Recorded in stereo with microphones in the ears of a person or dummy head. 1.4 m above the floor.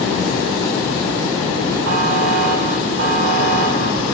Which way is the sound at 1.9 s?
85° right.